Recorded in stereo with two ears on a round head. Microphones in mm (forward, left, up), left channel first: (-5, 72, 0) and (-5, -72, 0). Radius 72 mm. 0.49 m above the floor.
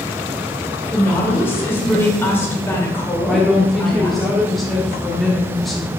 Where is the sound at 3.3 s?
Centre (ahead or behind), 1.0 m.